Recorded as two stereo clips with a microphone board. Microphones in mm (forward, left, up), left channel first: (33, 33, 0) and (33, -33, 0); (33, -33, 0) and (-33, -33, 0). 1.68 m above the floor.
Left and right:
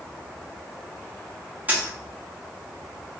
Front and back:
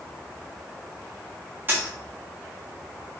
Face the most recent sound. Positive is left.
turn(degrees=-140)